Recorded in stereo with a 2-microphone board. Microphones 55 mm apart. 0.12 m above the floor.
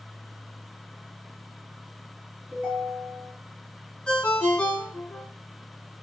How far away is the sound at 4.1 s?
About 0.6 m.